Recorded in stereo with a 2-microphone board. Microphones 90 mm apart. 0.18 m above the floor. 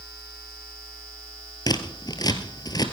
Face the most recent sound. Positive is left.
turn(degrees=50)  # may be behind; listen again after turning